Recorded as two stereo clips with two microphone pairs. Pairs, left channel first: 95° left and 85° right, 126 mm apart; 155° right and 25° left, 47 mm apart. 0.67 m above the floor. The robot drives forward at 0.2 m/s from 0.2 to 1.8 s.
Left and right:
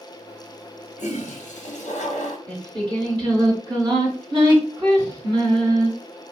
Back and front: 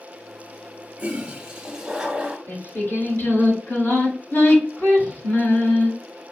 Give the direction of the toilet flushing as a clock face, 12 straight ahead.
9 o'clock.